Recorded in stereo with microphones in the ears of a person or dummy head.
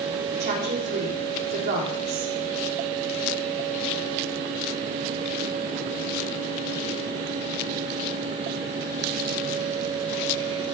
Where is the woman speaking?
50° right (ahead or behind), 3.5 m.